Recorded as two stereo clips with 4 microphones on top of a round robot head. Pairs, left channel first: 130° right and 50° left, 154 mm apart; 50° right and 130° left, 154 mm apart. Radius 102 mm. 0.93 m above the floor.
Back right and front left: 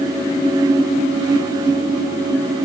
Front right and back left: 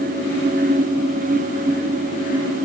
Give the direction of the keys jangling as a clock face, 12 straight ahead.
No keys jangling in this recording.